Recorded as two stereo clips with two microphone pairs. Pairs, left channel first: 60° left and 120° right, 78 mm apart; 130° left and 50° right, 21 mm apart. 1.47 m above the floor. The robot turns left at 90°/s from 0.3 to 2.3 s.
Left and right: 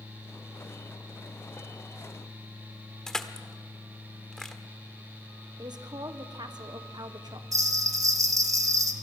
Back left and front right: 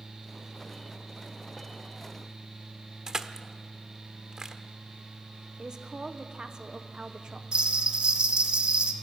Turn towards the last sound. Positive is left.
turn(degrees=-75)